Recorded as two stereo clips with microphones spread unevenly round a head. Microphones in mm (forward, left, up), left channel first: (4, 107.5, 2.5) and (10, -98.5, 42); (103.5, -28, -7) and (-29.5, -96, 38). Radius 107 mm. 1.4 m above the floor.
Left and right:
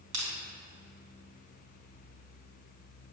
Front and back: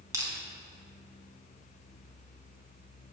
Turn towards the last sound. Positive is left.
turn(degrees=-90)